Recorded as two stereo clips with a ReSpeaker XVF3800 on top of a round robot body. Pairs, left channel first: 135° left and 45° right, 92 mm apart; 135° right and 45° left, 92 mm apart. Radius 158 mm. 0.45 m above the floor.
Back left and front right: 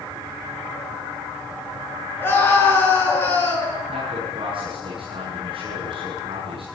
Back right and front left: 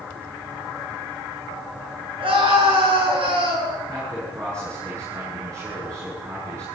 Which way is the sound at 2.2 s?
65° left.